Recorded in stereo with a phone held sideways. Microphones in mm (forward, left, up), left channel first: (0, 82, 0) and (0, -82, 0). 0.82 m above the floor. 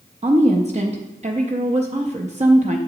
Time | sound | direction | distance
0.2 | a woman speaking | 45° right (ahead or behind) | 0.6 m